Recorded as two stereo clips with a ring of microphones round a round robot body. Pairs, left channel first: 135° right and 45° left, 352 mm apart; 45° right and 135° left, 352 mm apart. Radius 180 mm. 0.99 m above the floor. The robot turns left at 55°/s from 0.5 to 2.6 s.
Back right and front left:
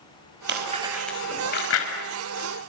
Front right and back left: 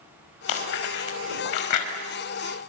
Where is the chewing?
15° right, 5 m; by 1.9 s 90° right, 5 m.